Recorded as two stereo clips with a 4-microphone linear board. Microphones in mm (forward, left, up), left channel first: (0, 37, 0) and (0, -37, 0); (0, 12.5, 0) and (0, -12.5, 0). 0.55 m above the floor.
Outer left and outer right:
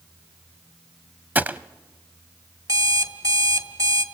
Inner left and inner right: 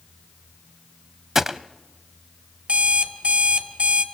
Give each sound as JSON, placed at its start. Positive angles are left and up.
{"t": 1.4, "sound": "a gunshot", "side_deg": -25, "distance_m": 0.6}
{"t": 2.7, "sound": "an alarm clock", "side_deg": -55, "distance_m": 1.6}